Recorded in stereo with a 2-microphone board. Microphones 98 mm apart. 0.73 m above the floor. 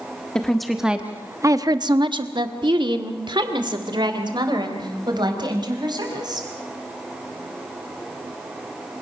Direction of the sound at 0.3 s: 10° left (ahead or behind).